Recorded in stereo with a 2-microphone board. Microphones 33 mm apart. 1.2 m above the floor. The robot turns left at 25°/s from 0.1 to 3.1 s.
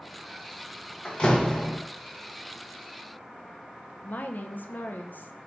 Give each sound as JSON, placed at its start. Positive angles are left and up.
{"t": 1.1, "sound": "a door slam", "side_deg": 35, "distance_m": 0.9}
{"t": 4.0, "sound": "a woman speaking", "side_deg": 60, "distance_m": 0.6}